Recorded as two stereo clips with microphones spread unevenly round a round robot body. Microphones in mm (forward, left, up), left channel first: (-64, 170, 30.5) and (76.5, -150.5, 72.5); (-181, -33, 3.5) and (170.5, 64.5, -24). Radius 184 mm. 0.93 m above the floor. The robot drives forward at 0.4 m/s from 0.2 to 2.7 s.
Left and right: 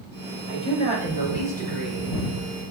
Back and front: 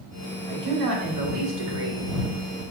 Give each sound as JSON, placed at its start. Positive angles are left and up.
{"t": 0.5, "sound": "a man speaking", "azimuth_deg": 40, "distance_m": 4.0}